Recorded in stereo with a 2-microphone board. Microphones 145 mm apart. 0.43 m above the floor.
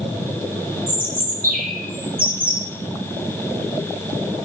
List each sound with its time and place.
0.9 s a bird: 85° right, 3.5 m